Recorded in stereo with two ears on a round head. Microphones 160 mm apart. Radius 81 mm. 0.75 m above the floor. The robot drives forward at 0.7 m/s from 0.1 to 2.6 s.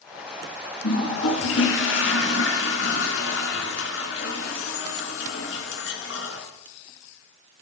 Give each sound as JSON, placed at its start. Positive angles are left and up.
{"t": 0.8, "sound": "a toilet flushing", "side_deg": 80, "distance_m": 3.0}